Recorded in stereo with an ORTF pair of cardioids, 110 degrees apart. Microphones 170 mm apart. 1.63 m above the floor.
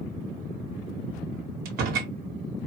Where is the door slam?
65° right, 1.4 m.